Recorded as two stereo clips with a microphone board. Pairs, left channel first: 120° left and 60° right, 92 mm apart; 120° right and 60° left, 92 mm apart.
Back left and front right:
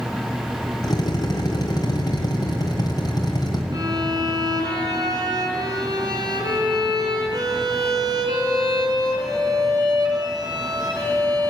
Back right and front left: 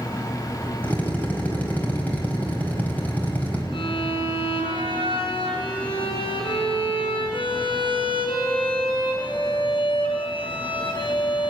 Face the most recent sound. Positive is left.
turn(degrees=-105)